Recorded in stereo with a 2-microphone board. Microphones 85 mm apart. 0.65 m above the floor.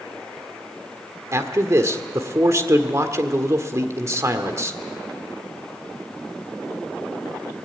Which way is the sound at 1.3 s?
35° right (ahead or behind).